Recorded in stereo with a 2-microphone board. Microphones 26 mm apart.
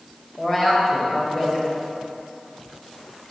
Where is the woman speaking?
20° left (ahead or behind), 1.1 m.